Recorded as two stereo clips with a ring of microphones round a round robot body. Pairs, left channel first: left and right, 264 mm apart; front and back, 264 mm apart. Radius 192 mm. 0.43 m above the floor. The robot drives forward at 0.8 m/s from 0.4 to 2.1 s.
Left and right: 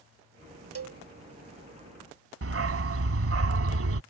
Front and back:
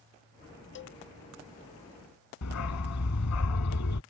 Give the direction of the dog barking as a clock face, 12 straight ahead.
2 o'clock.